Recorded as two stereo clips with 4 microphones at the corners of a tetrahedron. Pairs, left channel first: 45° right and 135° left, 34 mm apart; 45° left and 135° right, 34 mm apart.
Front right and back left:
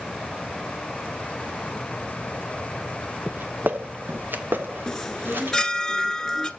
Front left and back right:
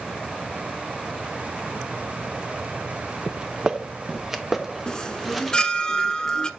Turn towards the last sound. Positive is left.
turn(degrees=10)